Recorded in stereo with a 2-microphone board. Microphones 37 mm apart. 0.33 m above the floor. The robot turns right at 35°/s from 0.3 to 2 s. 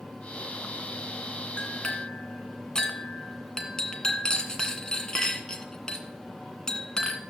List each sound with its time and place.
1.6 s a clink: 30° left (ahead or behind), 1.9 m; by 7.2 s 15° left (ahead or behind), 1.9 m